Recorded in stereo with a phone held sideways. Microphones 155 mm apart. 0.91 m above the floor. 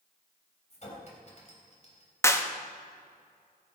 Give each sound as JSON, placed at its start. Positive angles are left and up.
{"t": 0.7, "sound": "a clink", "side_deg": 45, "distance_m": 3.5}
{"t": 2.2, "sound": "a clap", "side_deg": 15, "distance_m": 1.0}